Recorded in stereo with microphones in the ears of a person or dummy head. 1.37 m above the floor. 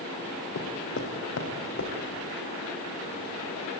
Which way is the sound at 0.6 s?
65° left (ahead or behind).